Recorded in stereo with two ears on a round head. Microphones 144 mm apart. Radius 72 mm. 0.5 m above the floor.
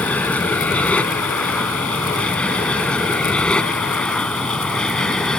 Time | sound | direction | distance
0.0 | an aircraft | 10° left (ahead or behind) | ?